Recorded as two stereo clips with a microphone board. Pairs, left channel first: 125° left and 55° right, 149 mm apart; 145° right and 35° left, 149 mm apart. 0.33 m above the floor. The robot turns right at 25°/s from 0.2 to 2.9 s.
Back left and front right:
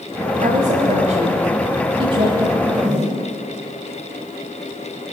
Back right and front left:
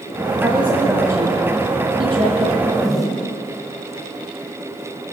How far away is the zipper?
About 2 m.